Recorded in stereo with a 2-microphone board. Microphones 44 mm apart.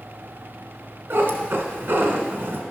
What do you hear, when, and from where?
1.1 s a cat meowing: 60° right (ahead or behind), 1.4 m